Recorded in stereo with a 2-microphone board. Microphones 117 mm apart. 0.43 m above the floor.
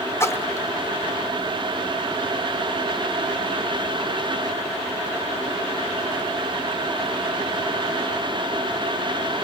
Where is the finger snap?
I don't hear a finger snap.